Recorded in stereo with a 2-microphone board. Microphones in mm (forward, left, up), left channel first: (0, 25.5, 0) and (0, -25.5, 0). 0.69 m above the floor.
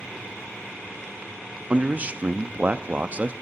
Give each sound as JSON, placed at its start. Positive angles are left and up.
{"t": 1.7, "sound": "a man speaking", "side_deg": -30, "distance_m": 0.5}